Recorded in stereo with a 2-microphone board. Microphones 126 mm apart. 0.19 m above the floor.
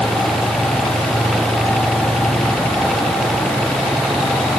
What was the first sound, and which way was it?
Only background noise.